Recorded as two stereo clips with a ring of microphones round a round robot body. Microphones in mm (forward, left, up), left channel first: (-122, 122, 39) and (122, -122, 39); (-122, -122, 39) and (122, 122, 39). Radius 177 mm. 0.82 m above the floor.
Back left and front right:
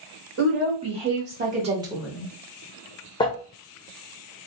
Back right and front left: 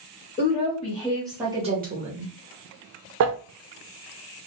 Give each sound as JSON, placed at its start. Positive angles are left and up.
{"t": 0.4, "sound": "a woman speaking", "azimuth_deg": -80, "distance_m": 1.3}
{"t": 3.2, "sound": "crumpling", "azimuth_deg": 65, "distance_m": 0.6}